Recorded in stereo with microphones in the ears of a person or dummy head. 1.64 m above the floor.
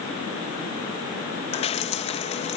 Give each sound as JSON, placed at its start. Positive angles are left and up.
{"t": 1.5, "sound": "dripping", "side_deg": 35}